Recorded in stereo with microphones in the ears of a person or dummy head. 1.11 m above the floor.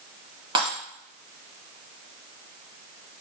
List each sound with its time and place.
0.6 s breaking glass: 30° right (ahead or behind), 3 m